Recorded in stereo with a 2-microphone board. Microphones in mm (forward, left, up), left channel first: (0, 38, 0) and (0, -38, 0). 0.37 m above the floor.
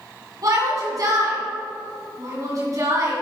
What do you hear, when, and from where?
0.4 s a shout: 50° right (ahead or behind), 3 m